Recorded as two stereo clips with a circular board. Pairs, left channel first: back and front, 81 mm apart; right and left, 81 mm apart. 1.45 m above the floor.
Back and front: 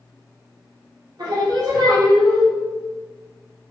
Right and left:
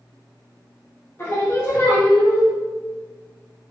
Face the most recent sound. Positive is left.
turn(degrees=-30)